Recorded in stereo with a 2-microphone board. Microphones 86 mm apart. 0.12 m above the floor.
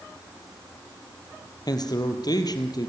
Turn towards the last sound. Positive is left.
turn(degrees=50)  # may be behind; listen again after turning